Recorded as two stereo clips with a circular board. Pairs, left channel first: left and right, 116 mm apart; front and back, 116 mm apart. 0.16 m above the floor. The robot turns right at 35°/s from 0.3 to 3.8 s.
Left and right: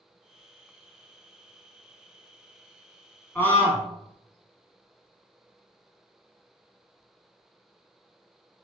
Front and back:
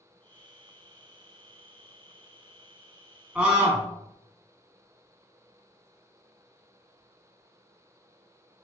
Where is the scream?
120° left, 1.1 m; by 3.9 s 135° left, 1.1 m.